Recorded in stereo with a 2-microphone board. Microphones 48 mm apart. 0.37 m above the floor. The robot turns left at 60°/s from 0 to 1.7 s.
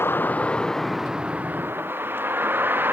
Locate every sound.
0.0 s a vehicle: 50° left (ahead or behind); by 2.9 s 40° right (ahead or behind)